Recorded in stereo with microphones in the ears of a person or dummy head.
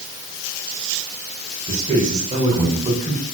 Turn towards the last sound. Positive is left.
turn(degrees=-30)  # may be behind; listen again after turning